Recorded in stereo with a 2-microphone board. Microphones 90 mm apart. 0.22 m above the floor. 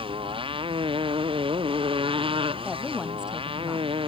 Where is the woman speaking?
10° right (ahead or behind).